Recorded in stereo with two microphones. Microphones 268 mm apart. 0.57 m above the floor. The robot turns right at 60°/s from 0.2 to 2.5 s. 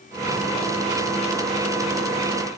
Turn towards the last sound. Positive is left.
No sound to turn to.